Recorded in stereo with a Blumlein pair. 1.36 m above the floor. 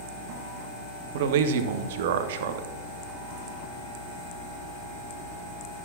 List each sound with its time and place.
1.1 s a man speaking: 55° right, 1.0 m